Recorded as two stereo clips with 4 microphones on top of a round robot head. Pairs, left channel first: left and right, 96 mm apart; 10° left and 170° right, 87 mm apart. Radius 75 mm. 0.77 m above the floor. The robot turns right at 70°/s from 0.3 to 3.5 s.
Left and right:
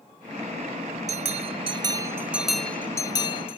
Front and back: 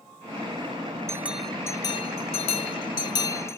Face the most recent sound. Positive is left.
turn(degrees=70)